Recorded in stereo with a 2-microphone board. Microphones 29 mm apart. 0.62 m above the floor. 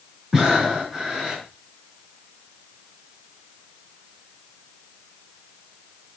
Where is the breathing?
25° right (ahead or behind), 5 m.